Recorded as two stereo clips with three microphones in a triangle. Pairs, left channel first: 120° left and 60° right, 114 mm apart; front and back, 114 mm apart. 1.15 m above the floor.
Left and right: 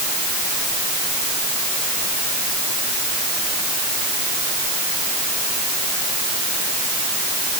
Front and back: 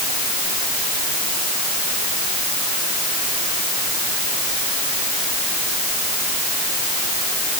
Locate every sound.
Only background noise.